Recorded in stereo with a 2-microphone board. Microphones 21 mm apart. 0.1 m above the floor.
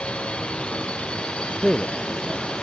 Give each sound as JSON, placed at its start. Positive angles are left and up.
{"t": 0.0, "sound": "a drone", "side_deg": 65}
{"t": 1.6, "sound": "a man speaking", "side_deg": 10}